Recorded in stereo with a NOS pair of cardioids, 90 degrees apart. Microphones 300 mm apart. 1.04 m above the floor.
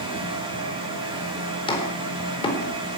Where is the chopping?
15° left, 4.5 m.